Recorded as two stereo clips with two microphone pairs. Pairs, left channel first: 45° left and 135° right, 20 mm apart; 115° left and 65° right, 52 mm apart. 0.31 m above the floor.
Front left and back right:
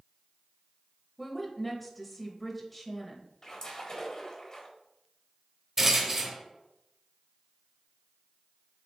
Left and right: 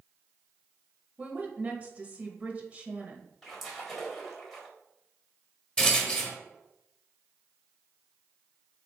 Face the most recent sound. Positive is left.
turn(degrees=180)